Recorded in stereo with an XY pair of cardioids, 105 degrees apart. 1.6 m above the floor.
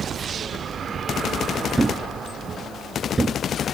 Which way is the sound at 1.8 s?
25° right.